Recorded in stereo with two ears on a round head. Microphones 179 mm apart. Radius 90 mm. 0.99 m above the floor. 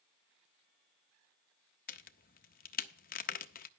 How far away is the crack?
About 0.6 m.